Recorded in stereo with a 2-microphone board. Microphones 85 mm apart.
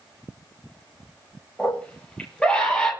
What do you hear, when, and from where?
1.6 s a scream: 15° left (ahead or behind), 8.5 m; by 2.9 s 10° left (ahead or behind), 9.5 m